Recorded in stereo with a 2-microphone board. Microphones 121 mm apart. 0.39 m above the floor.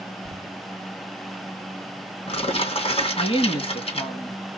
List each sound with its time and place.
0.2 s crumpling: 60° left (ahead or behind), 2.5 m
3.2 s a woman speaking: 55° left (ahead or behind), 3 m